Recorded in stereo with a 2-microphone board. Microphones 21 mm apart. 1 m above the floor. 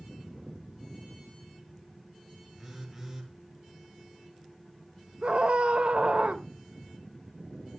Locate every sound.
2.6 s a phone buzzing: 5° right (ahead or behind), 3.5 m
5.2 s a scream: 60° right (ahead or behind), 1.3 m